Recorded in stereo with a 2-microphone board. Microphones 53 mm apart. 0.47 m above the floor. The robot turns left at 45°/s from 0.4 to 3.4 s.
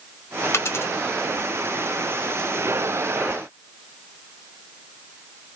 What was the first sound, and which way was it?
A dropped coin, 55° left (ahead or behind).